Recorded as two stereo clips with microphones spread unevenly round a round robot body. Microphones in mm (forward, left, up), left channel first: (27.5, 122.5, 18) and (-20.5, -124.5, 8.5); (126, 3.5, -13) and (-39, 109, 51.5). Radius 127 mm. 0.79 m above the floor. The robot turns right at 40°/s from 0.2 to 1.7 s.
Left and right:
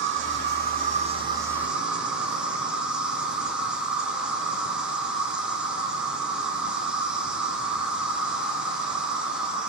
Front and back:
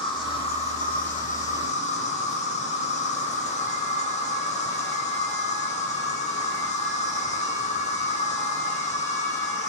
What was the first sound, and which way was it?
An insect, 75° right.